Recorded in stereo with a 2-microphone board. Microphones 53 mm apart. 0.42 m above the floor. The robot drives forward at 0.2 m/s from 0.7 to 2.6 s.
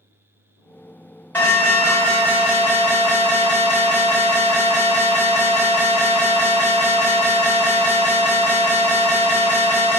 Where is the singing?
I don't hear singing.